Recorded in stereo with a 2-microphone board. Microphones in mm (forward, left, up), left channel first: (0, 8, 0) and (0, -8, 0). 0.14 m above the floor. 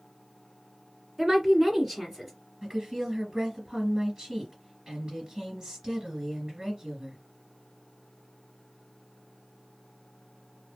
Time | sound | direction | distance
1.2 | a woman speaking | 25° right (ahead or behind) | 1.7 m
2.6 | a woman speaking | 50° right (ahead or behind) | 2.5 m